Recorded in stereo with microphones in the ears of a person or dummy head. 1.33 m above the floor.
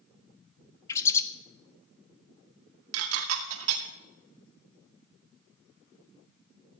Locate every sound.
0.9 s a bird: 15° left (ahead or behind), 0.9 m
2.9 s dishes clattering: 80° right, 2 m